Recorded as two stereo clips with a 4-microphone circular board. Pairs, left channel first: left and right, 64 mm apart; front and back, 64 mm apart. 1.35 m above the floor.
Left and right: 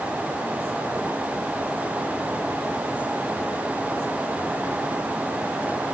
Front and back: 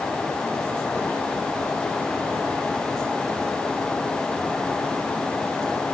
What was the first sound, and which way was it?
Only background noise.